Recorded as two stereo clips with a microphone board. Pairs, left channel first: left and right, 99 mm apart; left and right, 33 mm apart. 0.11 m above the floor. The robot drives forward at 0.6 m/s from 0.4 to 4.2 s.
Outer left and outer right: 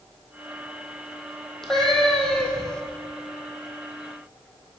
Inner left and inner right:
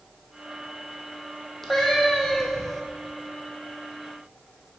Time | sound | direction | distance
1.6 | a cat meowing | 5° left (ahead or behind) | 1.4 m